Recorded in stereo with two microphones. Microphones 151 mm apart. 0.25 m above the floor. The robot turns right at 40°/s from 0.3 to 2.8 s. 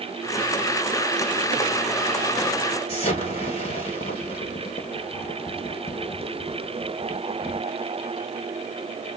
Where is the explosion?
40° left (ahead or behind), 1.2 m.